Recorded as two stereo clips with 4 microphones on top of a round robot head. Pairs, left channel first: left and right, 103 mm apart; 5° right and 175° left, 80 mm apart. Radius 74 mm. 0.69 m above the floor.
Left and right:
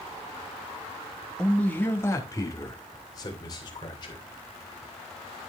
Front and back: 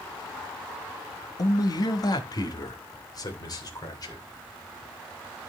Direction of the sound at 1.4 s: 10° left.